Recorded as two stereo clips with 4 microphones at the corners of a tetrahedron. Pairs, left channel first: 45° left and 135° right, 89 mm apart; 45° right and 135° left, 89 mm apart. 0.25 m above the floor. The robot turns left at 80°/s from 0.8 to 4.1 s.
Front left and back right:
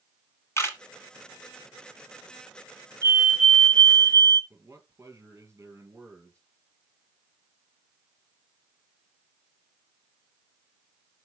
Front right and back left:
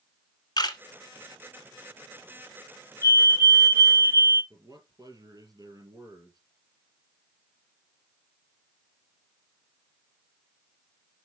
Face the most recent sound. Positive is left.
turn(degrees=170)